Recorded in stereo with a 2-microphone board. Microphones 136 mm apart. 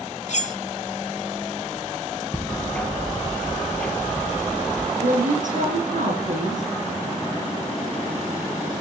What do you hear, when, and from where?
0.3 s cutlery clinking: 60° left (ahead or behind), 1.0 m
2.3 s ticking: 5° left (ahead or behind), 2.5 m
5.0 s a woman speaking: 70° right (ahead or behind), 7 m